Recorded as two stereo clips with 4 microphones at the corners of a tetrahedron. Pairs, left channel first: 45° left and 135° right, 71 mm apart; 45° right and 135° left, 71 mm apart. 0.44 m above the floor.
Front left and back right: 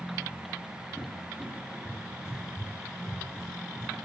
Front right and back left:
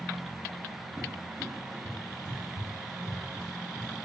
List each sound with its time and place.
1.0 s a cupboard door: 145° left, 1.3 m